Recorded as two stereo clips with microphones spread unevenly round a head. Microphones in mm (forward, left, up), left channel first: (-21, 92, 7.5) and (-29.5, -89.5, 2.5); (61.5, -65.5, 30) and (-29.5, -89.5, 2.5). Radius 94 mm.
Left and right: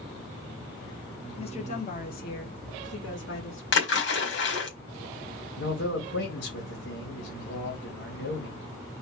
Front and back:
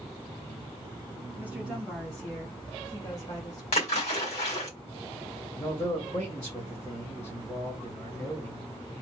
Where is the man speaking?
100° left, 1.9 m.